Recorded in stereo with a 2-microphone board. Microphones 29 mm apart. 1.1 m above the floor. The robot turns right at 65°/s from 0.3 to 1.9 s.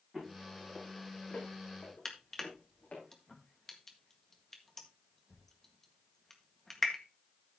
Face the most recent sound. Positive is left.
turn(degrees=15)  # may be behind; listen again after turning